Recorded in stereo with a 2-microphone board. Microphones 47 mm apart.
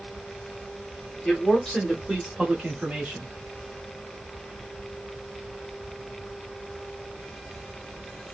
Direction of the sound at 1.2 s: 25° left (ahead or behind).